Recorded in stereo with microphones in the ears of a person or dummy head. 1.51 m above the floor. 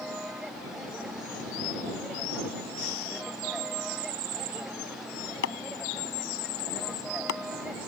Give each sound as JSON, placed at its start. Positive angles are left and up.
{"t": 0.0, "sound": "a vehicle", "side_deg": 0}
{"t": 2.8, "sound": "breathing", "side_deg": 75}
{"t": 5.4, "sound": "chopping", "side_deg": 65}